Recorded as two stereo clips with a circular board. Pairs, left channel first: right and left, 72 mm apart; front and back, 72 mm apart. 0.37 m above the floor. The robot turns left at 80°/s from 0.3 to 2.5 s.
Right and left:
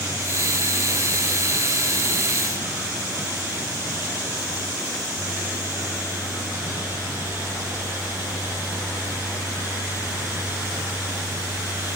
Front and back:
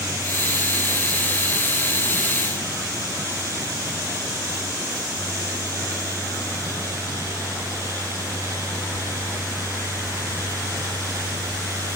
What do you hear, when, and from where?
Only background noise.